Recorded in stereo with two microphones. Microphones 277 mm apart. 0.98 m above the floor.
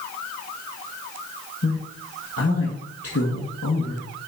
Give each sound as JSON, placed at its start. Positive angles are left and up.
{"t": 1.6, "sound": "a man speaking", "side_deg": 55, "distance_m": 1.4}